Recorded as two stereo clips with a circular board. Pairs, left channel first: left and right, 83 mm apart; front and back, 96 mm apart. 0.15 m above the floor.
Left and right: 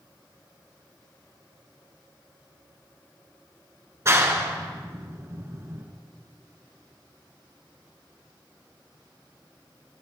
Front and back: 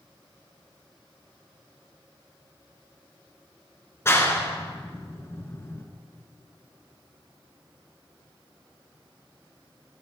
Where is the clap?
50° right, 1.9 m.